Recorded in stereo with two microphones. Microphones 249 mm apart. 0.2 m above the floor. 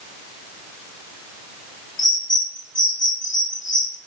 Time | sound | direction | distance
2.0 | a bird | 45° left (ahead or behind) | 0.8 m